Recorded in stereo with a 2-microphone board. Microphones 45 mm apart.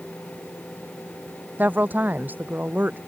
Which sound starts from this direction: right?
A woman speaking, at 1.6 s.